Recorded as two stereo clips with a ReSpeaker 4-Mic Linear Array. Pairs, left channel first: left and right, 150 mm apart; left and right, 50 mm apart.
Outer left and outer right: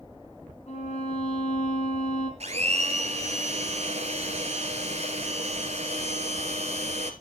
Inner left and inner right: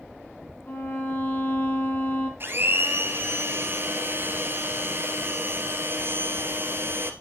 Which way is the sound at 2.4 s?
45° right (ahead or behind).